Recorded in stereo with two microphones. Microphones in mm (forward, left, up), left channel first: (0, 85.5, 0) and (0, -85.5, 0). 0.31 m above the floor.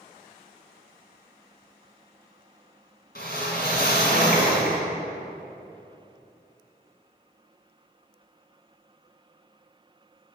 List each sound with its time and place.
3.1 s a whoosh: 65° left (ahead or behind), 2.0 m